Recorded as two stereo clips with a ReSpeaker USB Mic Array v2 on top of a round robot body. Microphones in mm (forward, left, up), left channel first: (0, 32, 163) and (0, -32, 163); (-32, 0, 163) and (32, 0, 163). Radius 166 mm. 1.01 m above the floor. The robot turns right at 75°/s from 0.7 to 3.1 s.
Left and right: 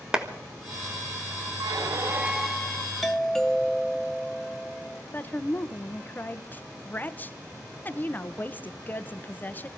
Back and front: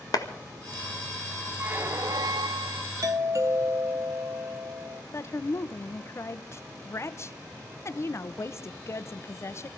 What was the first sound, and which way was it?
A clap, 170° right.